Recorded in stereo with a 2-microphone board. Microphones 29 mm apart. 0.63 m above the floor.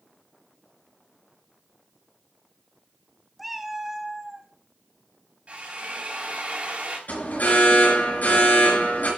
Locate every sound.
3.4 s a cat meowing: 5° right (ahead or behind), 0.8 m; by 4.5 s 20° right (ahead or behind), 1.8 m
5.5 s a drill: 50° right (ahead or behind), 3.5 m
7.1 s an alarm: 75° left (ahead or behind), 5 m